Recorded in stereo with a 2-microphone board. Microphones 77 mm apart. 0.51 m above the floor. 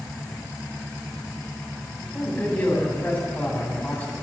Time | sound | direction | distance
2.0 | a man speaking | 20° left (ahead or behind) | 3 m